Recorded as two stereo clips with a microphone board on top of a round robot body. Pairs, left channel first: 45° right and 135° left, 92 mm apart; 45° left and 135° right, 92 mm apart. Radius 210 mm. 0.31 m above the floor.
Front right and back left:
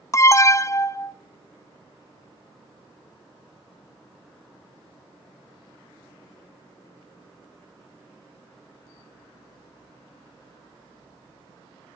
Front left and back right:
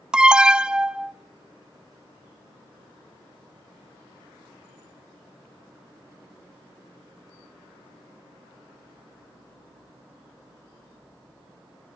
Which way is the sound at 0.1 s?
60° right.